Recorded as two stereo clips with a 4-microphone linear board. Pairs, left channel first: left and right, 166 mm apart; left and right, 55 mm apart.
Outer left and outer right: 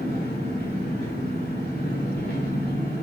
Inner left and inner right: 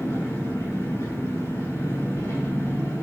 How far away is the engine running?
About 4.5 m.